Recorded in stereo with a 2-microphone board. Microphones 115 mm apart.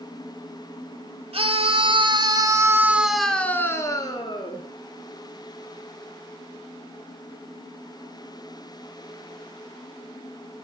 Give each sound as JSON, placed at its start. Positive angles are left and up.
{"t": 1.3, "sound": "a scream", "side_deg": -55, "distance_m": 3.0}